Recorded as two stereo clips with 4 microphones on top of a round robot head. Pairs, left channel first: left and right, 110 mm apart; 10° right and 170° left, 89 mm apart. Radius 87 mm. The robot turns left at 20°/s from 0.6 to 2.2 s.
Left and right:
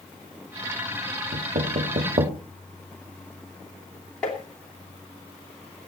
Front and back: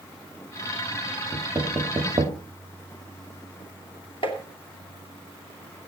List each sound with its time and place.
1.3 s knocking: 105° right, 1.7 m; by 2.4 s 125° right, 1.7 m
4.2 s tapping: 10° left, 2.5 m